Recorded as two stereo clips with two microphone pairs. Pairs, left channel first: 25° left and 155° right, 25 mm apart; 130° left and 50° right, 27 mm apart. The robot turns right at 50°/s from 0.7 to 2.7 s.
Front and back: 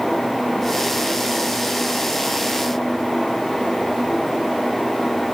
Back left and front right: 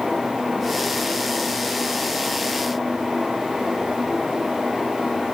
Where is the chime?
No chime in this recording.